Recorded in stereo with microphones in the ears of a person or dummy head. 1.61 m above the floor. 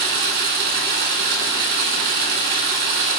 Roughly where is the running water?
Right.